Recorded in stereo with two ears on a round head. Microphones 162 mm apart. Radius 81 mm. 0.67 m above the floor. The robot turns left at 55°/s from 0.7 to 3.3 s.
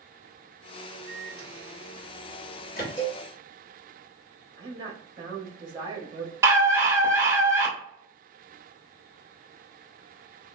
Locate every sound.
1.1 s a microwave: 10° left (ahead or behind), 1.2 m; by 2.9 s 55° left (ahead or behind), 1.2 m
3.0 s a cowbell: 25° left (ahead or behind), 0.9 m; by 3.2 s 10° left (ahead or behind), 0.9 m
4.6 s a woman speaking: 25° right (ahead or behind), 0.8 m
6.4 s a scream: 15° right (ahead or behind), 0.8 m